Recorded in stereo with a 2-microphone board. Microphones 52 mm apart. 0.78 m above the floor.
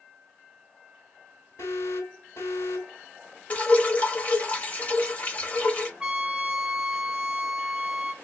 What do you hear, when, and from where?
1.6 s an alarm: 85° left, 4 m
3.5 s dripping: 30° left (ahead or behind), 1.0 m
6.0 s a trumpet: 20° right (ahead or behind), 0.6 m